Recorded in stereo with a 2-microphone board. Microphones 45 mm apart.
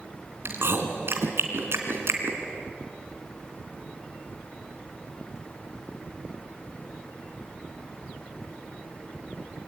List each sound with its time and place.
0.5 s chewing: 65° right (ahead or behind), 2.5 m